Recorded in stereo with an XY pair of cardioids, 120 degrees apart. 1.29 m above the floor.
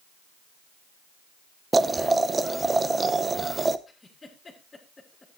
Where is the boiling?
25° right, 0.7 m.